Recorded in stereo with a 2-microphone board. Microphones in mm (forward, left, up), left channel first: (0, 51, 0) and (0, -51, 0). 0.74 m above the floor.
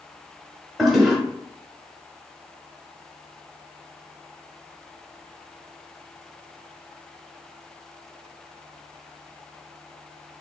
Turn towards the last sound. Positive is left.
turn(degrees=0)  # may be behind; listen again after turning